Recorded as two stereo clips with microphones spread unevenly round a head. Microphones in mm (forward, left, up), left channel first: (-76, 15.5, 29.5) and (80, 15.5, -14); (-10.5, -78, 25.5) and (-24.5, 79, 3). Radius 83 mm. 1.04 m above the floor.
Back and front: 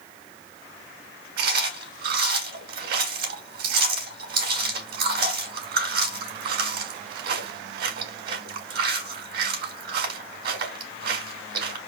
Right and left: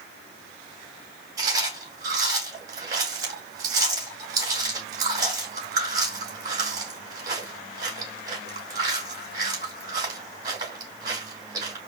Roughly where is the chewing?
Ahead left.